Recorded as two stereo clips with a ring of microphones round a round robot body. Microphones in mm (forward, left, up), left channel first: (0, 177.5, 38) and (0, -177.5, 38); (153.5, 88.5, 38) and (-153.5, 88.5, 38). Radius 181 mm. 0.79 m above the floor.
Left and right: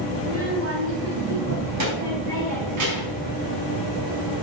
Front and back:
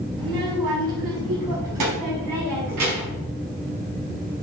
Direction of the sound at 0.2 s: 150° right.